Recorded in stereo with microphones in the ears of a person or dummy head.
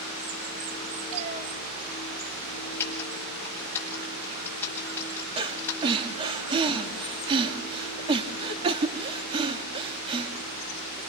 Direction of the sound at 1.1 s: 40° right (ahead or behind).